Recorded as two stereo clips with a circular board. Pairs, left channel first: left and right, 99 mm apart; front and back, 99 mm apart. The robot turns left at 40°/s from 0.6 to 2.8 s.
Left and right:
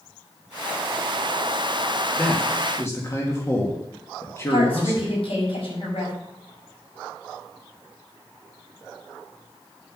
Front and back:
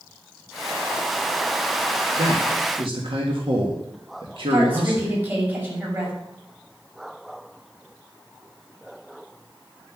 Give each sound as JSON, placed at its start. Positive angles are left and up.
{"t": 2.2, "sound": "a man speaking", "azimuth_deg": 175, "distance_m": 2.0}
{"t": 4.5, "sound": "a woman speaking", "azimuth_deg": 110, "distance_m": 6.5}